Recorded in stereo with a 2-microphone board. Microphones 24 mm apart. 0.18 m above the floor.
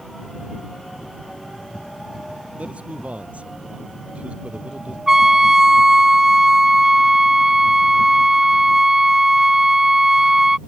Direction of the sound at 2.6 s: 70° right (ahead or behind).